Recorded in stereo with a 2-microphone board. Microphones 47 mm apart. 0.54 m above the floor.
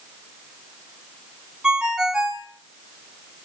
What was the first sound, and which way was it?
A ringtone, 15° right (ahead or behind).